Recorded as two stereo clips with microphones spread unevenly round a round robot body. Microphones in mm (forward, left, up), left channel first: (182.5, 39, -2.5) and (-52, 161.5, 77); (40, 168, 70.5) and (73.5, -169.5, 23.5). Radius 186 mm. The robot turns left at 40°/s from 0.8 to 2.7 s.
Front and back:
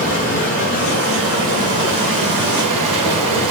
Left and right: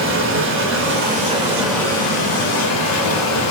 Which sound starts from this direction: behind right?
Running water, at 0.0 s.